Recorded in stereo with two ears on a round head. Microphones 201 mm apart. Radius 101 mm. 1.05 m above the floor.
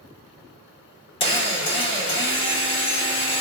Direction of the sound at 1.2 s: 25° left (ahead or behind).